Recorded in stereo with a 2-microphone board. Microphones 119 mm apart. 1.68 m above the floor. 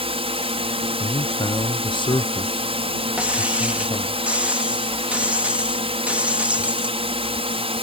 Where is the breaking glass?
10° right (ahead or behind).